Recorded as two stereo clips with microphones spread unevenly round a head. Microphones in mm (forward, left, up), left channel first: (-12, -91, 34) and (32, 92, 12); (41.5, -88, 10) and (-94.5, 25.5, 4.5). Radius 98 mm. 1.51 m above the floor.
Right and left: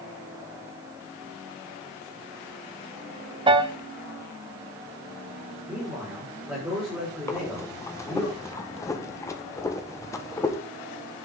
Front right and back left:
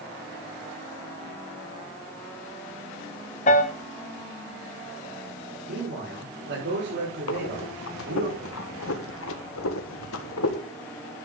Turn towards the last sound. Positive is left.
turn(degrees=-30)